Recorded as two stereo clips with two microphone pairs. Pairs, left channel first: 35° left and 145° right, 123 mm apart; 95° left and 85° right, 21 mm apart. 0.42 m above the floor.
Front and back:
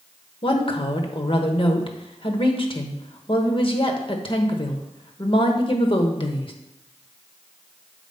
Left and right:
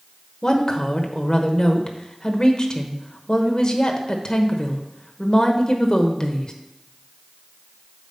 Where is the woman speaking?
55° left, 1.0 m.